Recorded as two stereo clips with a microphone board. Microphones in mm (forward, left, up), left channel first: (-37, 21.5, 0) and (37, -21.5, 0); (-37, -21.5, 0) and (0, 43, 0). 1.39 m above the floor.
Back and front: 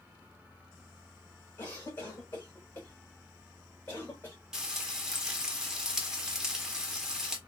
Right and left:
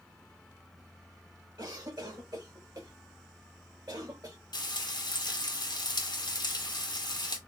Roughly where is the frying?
Behind right.